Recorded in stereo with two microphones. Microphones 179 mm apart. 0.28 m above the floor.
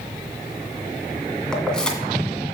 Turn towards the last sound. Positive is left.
turn(degrees=5)  # may be behind; listen again after turning